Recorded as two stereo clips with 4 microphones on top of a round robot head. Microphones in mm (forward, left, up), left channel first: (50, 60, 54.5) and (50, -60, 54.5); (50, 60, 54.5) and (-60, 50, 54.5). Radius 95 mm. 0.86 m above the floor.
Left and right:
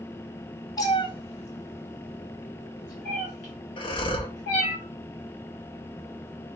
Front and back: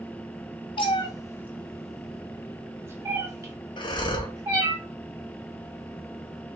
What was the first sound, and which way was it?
A cat meowing, 35° left.